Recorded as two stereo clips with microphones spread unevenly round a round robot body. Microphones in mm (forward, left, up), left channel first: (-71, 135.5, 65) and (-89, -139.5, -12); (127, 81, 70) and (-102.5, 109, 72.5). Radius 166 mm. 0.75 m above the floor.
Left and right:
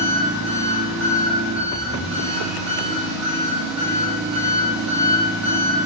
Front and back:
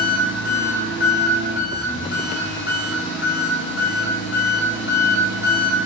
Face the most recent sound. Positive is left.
turn(degrees=-20)